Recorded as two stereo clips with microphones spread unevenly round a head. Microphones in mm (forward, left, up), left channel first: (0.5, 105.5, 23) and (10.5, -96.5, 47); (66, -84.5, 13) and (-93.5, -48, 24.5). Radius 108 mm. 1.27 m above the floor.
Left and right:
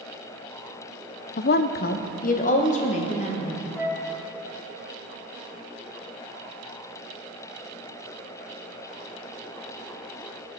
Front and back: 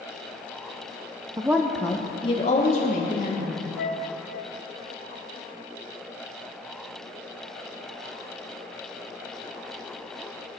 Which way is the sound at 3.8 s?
5° right.